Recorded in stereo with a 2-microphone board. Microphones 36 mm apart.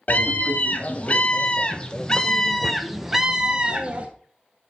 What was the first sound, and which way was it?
A scream, 45° left (ahead or behind).